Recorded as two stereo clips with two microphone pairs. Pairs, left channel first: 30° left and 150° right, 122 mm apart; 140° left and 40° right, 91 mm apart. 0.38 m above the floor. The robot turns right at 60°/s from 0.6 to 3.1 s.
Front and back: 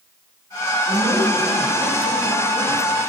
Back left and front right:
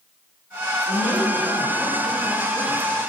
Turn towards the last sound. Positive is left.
turn(degrees=100)